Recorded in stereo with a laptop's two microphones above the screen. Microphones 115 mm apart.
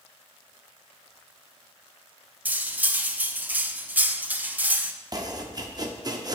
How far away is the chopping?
About 0.7 m.